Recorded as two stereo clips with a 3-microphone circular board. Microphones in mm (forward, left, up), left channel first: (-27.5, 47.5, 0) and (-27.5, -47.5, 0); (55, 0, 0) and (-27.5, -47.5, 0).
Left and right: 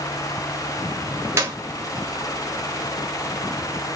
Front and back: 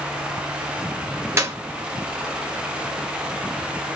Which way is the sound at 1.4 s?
125° right.